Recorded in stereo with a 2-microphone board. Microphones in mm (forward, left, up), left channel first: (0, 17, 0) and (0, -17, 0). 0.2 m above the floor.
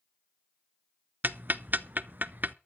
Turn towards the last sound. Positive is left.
turn(degrees=-60)  # may be behind; listen again after turning